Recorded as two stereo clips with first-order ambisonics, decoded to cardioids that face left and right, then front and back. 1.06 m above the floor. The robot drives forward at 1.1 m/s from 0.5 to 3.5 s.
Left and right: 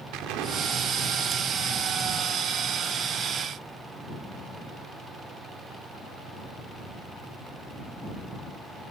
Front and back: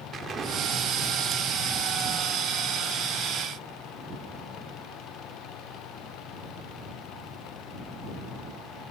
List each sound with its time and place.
0.1 s an explosion: 115° right, 2 m; by 3.8 s 155° right, 4.5 m